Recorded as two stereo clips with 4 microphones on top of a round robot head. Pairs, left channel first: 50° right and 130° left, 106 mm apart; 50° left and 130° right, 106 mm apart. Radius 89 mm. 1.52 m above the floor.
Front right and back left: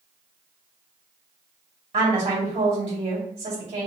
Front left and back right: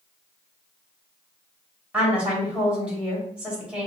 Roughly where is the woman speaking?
Behind left.